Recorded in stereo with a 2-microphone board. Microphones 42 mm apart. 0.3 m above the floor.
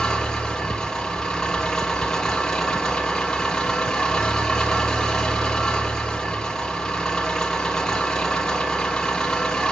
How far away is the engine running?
About 2.5 m.